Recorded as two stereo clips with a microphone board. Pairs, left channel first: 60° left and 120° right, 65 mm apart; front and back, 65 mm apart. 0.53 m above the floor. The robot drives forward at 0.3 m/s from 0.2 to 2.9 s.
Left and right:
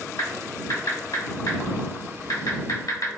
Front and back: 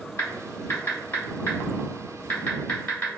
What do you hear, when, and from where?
0.2 s typing on a keyboard: 45° left, 1.8 m; by 3.1 s 70° left, 1.4 m